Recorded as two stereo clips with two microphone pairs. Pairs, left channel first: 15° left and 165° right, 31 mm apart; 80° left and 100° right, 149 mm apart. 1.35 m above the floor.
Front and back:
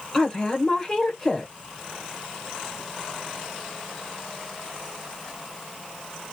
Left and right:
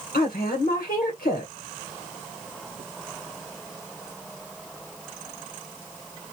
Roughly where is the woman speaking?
Left.